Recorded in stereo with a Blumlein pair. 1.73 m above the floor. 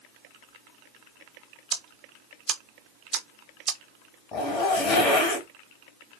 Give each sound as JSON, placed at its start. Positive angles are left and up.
{"t": 1.7, "sound": "ticking", "azimuth_deg": -25, "distance_m": 0.8}
{"t": 4.3, "sound": "a zipper", "azimuth_deg": 30, "distance_m": 1.3}